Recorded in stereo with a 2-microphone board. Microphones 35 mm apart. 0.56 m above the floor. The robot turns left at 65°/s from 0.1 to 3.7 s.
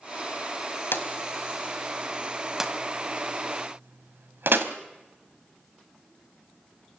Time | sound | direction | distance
0.9 | a drawer | 85° left | 1.5 m